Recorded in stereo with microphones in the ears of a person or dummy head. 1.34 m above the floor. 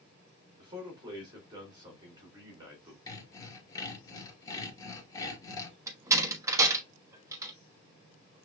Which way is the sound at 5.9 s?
15° right (ahead or behind).